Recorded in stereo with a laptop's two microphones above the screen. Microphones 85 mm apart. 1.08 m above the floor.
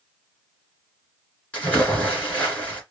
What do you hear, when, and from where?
1.5 s a splash: 15° left (ahead or behind), 2 m